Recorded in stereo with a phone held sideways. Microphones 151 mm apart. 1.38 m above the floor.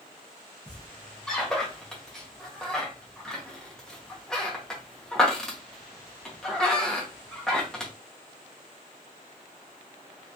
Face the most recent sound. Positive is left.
turn(degrees=5)  # may be behind; listen again after turning